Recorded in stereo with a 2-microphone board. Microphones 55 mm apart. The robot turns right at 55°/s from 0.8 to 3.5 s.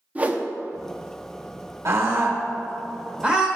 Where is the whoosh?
25° right (ahead or behind), 0.7 m.